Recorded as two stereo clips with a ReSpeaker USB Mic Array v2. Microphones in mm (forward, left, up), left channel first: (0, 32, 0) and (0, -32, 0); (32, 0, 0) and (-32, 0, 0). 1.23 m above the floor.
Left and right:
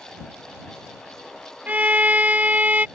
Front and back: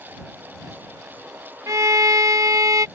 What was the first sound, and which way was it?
A violin, 155° right.